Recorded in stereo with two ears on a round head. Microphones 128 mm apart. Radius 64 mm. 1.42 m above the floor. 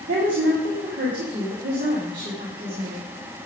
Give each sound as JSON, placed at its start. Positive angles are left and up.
{"t": 0.1, "sound": "a woman speaking", "side_deg": -70, "distance_m": 2.5}